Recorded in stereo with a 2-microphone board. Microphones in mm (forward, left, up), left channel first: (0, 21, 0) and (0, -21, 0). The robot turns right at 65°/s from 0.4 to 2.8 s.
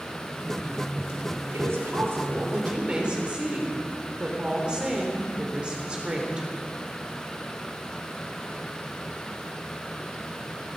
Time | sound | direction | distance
1.5 | a woman speaking | 105° right | 3 m